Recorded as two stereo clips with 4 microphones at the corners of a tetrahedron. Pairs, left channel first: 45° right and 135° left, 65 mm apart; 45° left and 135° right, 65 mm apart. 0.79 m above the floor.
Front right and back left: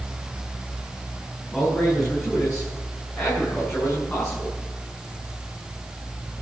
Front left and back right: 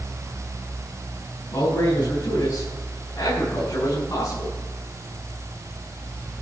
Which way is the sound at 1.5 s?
40° left.